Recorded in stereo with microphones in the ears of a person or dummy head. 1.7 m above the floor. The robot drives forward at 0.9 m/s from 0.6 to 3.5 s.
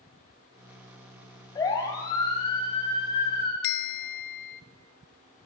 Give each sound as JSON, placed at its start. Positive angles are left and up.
{"t": 1.6, "sound": "a siren", "side_deg": 20, "distance_m": 4.0}
{"t": 3.6, "sound": "a bell", "side_deg": 55, "distance_m": 0.6}